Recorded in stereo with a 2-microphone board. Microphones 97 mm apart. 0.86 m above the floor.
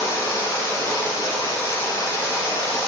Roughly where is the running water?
Left.